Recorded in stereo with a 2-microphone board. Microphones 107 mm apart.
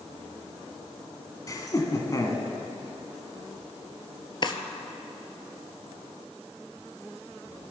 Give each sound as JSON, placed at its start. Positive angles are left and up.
{"t": 1.5, "sound": "laughter", "side_deg": 30, "distance_m": 1.4}
{"t": 4.4, "sound": "a drawer", "side_deg": 45, "distance_m": 0.7}